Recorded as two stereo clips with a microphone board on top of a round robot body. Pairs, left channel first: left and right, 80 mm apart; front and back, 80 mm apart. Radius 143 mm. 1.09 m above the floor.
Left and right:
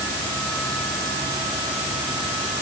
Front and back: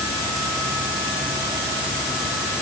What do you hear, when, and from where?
Only background noise.